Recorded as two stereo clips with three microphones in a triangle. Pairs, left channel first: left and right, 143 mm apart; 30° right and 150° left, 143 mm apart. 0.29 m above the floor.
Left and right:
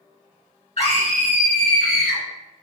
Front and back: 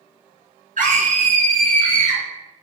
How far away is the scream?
About 3 m.